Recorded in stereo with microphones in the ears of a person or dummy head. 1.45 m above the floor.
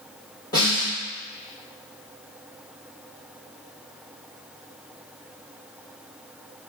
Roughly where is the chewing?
I don't hear chewing.